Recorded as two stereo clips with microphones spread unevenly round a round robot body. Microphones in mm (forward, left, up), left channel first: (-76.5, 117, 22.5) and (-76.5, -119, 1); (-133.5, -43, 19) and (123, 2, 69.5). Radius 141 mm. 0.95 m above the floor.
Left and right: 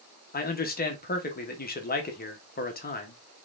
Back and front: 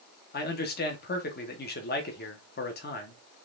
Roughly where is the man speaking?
Behind left.